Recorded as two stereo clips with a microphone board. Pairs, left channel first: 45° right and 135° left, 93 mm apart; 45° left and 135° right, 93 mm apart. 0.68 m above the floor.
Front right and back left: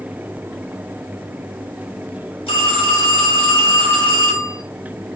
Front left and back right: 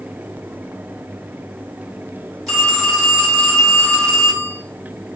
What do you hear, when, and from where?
2.5 s a phone ringing: 45° right, 1.4 m